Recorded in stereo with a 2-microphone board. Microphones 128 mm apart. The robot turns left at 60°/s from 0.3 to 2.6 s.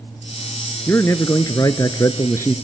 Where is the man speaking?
20° left (ahead or behind), 1.2 m; by 2.5 s 15° left (ahead or behind), 1.2 m.